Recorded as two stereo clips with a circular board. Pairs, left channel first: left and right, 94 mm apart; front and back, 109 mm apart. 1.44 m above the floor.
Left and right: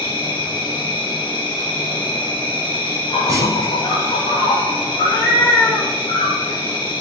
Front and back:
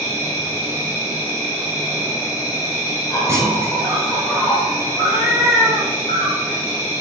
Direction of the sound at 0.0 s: 60° left.